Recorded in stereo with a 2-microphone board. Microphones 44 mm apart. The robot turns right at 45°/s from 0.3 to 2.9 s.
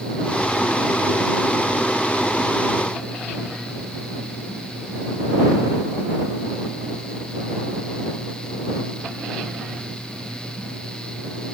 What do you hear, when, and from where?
Only background noise.